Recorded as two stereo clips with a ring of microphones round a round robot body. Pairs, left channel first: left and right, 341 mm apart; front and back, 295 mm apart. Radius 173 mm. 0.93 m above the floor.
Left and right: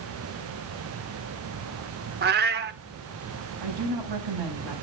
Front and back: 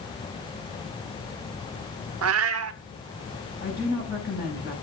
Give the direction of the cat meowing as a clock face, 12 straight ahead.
5 o'clock.